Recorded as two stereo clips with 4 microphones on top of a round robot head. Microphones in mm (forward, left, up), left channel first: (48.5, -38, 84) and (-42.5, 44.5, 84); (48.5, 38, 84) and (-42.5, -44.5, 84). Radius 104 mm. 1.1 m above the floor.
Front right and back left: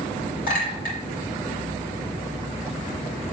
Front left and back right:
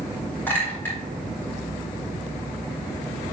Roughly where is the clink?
Ahead right.